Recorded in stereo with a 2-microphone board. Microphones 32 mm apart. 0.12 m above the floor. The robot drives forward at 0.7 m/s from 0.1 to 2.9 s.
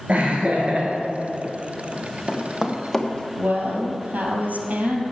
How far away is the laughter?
About 2 m.